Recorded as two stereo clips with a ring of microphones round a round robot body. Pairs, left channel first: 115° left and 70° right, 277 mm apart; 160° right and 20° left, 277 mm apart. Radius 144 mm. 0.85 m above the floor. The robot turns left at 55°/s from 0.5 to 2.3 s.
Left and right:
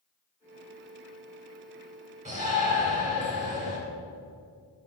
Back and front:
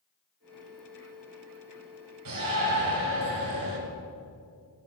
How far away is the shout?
About 2.5 m.